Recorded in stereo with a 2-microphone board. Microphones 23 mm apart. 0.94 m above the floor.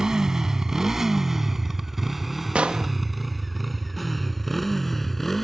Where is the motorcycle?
25° right (ahead or behind); by 5.4 s 5° left (ahead or behind).